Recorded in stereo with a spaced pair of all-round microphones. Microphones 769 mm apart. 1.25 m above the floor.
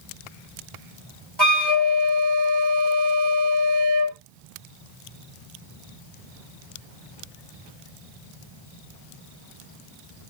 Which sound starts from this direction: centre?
A flute, at 1.4 s.